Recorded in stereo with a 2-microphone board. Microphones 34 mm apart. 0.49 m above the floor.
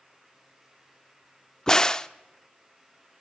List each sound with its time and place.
1.7 s a crack: 20° left (ahead or behind), 0.6 m